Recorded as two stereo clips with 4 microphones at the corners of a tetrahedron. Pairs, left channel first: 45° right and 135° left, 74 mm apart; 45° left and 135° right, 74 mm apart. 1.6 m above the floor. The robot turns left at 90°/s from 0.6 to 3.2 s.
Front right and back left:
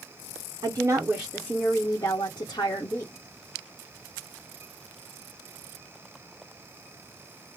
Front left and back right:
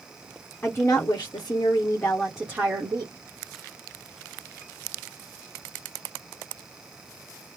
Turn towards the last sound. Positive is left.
turn(degrees=-120)